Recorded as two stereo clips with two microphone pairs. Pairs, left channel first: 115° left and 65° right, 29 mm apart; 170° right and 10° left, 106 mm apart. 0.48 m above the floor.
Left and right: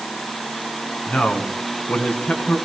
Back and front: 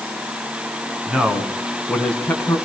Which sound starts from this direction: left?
A man speaking, at 1.1 s.